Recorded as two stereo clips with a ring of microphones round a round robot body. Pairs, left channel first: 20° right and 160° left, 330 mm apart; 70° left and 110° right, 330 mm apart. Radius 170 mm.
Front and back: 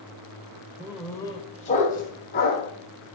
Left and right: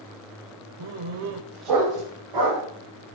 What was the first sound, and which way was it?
A dog barking, 125° right.